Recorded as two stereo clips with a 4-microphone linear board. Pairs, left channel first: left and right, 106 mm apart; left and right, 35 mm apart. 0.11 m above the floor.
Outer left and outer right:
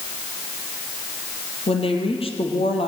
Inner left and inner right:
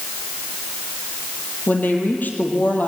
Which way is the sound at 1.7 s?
60° left (ahead or behind).